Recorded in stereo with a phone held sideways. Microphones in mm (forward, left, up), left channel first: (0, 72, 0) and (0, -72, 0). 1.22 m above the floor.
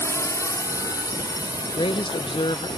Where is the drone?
20° left (ahead or behind); by 2.8 s 30° left (ahead or behind).